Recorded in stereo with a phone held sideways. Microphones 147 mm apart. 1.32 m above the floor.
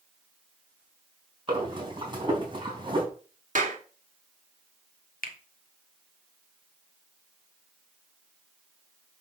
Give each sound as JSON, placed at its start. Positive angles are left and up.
{"t": 1.5, "sound": "breathing", "side_deg": -30, "distance_m": 4.0}
{"t": 3.5, "sound": "a clap", "side_deg": -60, "distance_m": 2.0}
{"t": 5.2, "sound": "a finger snap", "side_deg": 80, "distance_m": 1.4}